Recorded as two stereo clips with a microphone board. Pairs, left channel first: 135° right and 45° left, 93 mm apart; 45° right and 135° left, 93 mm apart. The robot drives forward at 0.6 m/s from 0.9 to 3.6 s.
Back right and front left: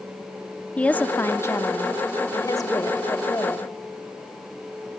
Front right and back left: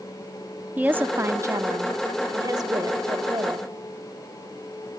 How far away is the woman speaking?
About 0.6 m.